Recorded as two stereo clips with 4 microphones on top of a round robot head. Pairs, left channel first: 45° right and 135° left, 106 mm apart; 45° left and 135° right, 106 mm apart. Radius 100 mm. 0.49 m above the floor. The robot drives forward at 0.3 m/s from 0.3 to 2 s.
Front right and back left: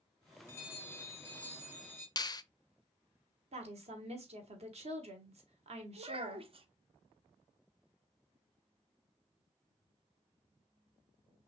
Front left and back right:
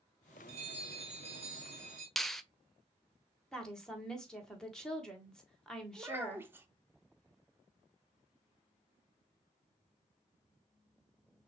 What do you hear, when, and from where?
0.5 s a bell: 110° right, 2 m; by 2.1 s 120° right, 2.5 m
2.2 s a finger snap: 40° right, 0.5 m
3.5 s a woman speaking: 130° left, 1.6 m
6.0 s a child speaking: 155° left, 1.0 m